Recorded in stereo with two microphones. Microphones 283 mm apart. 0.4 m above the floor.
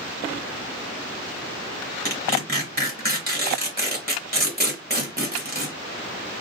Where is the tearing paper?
35° right (ahead or behind), 1.0 m.